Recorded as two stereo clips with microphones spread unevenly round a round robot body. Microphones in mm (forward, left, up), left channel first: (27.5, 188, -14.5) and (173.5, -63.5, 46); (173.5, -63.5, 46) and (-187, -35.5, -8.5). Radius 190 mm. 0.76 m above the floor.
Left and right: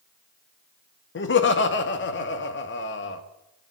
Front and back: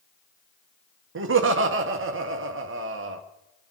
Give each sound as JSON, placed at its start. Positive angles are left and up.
{"t": 1.1, "sound": "laughter", "azimuth_deg": 140, "distance_m": 1.6}